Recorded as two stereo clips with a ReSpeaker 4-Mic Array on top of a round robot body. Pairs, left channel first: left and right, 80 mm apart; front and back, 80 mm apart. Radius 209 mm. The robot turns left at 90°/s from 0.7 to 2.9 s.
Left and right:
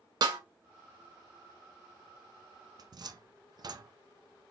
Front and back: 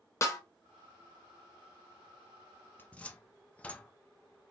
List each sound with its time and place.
0.2 s a snare drum: 55° right, 0.9 m
2.8 s a cupboard door: 65° right, 0.6 m; by 3.9 s 75° right, 0.6 m